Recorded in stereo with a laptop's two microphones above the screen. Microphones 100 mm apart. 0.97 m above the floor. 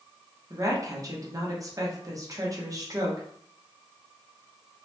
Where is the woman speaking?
35° right (ahead or behind), 0.8 m.